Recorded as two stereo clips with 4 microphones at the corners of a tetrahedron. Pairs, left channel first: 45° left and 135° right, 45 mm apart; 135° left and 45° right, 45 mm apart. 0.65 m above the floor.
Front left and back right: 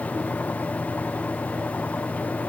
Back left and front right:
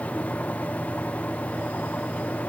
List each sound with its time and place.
Only background noise.